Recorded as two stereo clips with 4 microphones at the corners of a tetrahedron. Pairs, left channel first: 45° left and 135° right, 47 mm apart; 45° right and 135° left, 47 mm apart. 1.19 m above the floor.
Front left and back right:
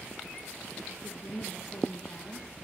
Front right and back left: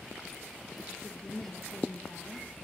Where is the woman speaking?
20° left, 1.7 m.